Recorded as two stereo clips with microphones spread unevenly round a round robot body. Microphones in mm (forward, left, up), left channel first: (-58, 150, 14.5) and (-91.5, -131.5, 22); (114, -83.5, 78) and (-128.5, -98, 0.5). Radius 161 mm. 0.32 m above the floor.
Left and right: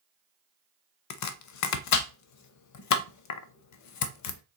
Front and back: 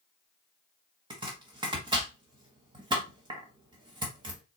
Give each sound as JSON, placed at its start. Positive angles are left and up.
{"t": 1.1, "sound": "chopping", "azimuth_deg": 115, "distance_m": 0.5}